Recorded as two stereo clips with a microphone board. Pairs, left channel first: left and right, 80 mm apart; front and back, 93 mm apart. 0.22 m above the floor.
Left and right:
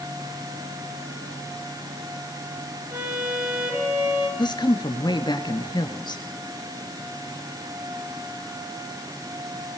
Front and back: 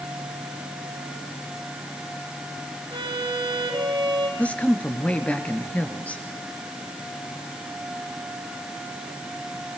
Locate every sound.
2.9 s a violin: 150° right, 3.5 m
4.4 s a woman speaking: 75° left, 3 m